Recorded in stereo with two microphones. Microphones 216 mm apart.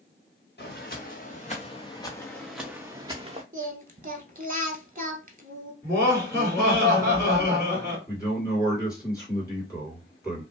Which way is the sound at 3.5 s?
40° right (ahead or behind).